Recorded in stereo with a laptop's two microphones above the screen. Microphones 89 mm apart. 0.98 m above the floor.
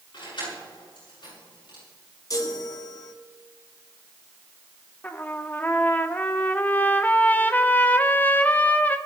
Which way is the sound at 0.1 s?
60° left (ahead or behind).